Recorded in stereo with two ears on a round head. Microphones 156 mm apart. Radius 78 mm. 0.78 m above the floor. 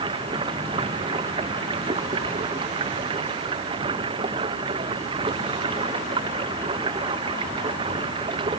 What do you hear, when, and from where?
0.0 s running water: 30° right (ahead or behind)